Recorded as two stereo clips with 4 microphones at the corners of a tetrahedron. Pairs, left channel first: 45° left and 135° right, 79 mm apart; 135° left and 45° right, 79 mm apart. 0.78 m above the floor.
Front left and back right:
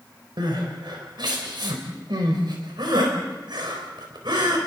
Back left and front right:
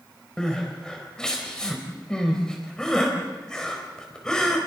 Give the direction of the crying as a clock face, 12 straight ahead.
5 o'clock.